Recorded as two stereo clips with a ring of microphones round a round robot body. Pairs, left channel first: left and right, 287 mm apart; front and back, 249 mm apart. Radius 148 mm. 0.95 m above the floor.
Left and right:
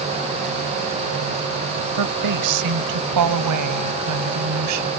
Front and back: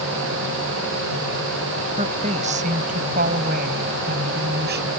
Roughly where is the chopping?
I don't hear chopping.